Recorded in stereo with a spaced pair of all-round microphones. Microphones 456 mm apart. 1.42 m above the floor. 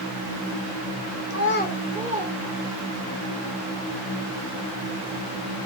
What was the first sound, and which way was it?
A child speaking, 40° left (ahead or behind).